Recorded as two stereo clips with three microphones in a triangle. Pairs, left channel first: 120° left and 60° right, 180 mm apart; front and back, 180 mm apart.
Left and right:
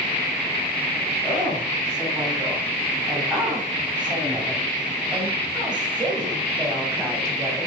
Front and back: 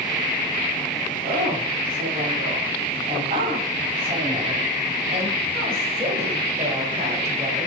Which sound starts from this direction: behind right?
A woman speaking, at 1.2 s.